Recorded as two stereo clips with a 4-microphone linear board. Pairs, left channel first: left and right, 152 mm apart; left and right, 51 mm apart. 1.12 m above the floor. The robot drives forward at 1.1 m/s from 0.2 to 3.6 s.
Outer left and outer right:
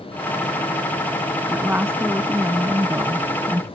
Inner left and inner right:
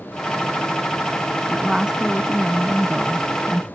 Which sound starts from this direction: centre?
A woman speaking, at 1.5 s.